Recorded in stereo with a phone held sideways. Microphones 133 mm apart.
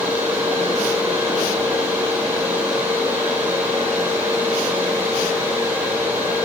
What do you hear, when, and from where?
0.0 s a fan: 15° right (ahead or behind), 4.5 m